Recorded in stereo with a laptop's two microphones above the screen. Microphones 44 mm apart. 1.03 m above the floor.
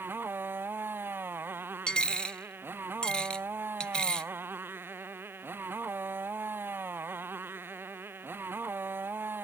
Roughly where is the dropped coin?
Left.